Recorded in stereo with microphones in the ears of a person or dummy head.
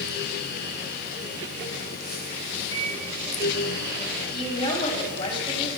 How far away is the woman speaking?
About 8.5 m.